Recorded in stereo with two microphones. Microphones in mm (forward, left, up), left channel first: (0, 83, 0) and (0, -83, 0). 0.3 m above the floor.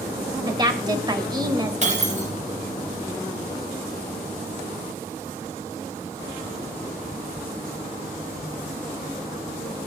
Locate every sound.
0.5 s a woman speaking: 25° right (ahead or behind), 1.0 m
1.8 s breaking glass: 45° right (ahead or behind), 2.5 m